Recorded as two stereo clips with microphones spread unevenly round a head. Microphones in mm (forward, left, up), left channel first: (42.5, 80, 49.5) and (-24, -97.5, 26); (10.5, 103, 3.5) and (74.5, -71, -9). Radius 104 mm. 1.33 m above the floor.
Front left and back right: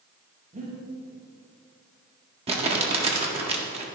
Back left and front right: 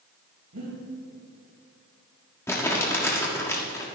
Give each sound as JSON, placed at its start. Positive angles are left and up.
{"t": 0.5, "sound": "breathing", "azimuth_deg": -60, "distance_m": 5.0}
{"t": 2.5, "sound": "crumpling", "azimuth_deg": -175, "distance_m": 1.6}